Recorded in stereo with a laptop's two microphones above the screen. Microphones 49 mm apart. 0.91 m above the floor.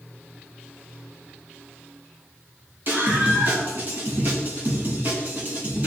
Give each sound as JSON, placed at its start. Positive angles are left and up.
{"t": 2.9, "sound": "a scream", "side_deg": -45, "distance_m": 7.5}